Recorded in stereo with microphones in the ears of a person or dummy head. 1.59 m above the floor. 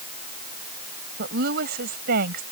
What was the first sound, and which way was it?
A woman speaking, 55° right (ahead or behind).